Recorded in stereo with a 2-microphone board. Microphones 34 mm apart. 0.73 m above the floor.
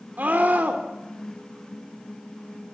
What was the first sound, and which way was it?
A scream, 60° right (ahead or behind).